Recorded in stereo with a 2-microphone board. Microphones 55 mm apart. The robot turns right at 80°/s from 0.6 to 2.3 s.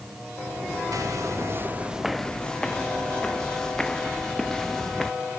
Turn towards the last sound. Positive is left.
turn(degrees=10)  # may be behind; listen again after turning